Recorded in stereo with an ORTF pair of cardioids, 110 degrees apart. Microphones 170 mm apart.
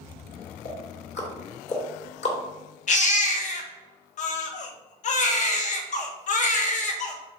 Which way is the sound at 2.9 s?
50° left.